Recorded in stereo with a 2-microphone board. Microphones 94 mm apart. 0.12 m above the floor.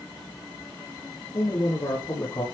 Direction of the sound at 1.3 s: 55° left (ahead or behind).